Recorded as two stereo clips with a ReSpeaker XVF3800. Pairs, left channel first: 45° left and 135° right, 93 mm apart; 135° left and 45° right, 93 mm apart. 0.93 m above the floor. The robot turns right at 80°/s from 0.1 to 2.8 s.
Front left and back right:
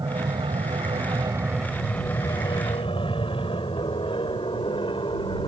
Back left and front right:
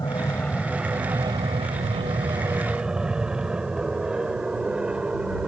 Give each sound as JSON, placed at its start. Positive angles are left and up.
{"t": 0.0, "sound": "an aircraft", "azimuth_deg": 180}